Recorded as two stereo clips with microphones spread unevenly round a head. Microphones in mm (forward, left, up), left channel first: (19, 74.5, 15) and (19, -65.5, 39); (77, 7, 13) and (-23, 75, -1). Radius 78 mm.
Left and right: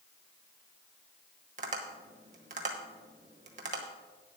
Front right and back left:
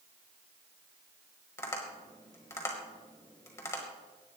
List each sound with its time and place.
1.6 s tapping: 95° right, 1.3 m